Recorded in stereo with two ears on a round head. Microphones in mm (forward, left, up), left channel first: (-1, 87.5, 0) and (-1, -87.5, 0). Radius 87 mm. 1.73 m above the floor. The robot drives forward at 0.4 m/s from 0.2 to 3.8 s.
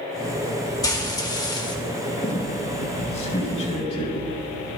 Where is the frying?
20° left (ahead or behind), 1.8 m.